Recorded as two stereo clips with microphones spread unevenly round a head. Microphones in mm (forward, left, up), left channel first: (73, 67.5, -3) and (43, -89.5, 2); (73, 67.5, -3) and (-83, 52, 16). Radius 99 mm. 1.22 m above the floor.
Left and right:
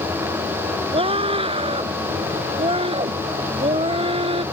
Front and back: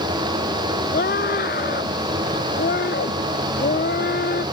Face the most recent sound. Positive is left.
turn(degrees=-45)